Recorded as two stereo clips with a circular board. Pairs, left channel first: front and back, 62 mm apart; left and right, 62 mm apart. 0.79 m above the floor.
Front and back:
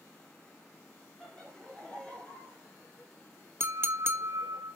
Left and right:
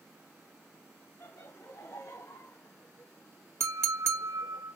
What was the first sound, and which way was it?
Laughter, 85° left.